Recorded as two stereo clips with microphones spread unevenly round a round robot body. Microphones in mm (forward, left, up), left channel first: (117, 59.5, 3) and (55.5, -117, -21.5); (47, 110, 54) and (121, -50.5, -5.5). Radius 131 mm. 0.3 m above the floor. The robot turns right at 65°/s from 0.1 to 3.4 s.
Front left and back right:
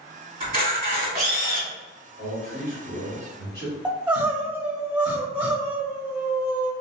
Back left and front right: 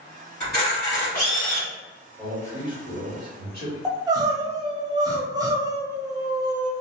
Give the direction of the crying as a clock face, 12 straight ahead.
1 o'clock.